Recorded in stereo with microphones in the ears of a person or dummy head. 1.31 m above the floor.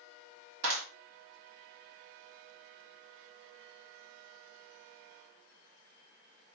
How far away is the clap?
About 2.5 m.